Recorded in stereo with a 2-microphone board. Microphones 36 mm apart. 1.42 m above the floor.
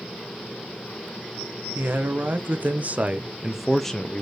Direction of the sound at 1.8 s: 65° right (ahead or behind).